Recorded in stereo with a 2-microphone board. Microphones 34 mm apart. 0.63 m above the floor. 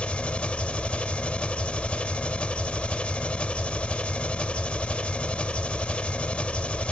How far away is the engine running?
About 0.7 m.